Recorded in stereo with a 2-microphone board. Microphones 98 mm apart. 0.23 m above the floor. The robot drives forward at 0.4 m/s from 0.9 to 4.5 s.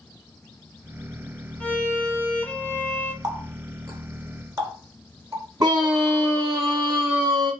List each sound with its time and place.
1.6 s a violin: 15° left (ahead or behind), 1.7 m; by 3.1 s 20° left (ahead or behind), 1.3 m
3.2 s a running tap: 45° right (ahead or behind), 1.4 m; by 5.5 s 35° right (ahead or behind), 1.7 m
5.6 s a scream: 40° right (ahead or behind), 1.6 m